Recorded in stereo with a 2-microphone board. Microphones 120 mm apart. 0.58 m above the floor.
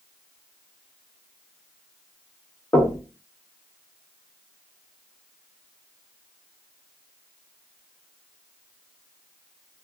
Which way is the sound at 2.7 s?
20° left (ahead or behind).